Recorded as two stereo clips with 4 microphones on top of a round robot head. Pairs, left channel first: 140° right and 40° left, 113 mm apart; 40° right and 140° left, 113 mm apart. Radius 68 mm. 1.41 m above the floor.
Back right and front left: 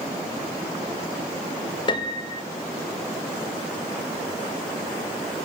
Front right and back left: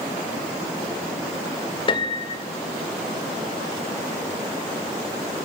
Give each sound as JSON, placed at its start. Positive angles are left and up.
{"t": 1.9, "sound": "a piano", "azimuth_deg": -90, "distance_m": 1.9}